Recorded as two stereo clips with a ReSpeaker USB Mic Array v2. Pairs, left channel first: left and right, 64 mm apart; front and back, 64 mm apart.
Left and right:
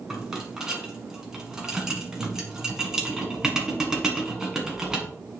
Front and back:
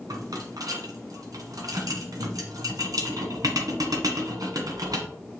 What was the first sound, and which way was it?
A rattle, 170° right.